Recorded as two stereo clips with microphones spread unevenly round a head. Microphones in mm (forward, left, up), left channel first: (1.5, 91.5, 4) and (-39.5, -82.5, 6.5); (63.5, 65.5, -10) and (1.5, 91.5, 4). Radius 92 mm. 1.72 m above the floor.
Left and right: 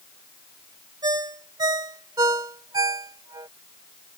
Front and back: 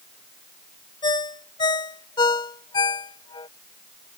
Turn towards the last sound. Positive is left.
turn(degrees=-35)